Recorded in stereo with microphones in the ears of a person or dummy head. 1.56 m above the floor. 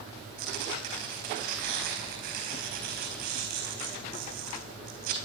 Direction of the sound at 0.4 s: 55° right (ahead or behind).